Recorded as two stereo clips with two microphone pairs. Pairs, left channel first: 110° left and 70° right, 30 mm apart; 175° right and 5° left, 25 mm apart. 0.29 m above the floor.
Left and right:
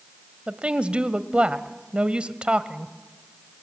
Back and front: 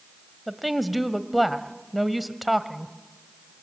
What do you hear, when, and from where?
0.5 s a woman speaking: 80° right, 1.2 m